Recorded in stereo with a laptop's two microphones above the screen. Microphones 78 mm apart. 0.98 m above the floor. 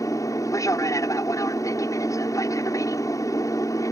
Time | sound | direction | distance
0.0 | an aircraft | 50° left (ahead or behind) | ?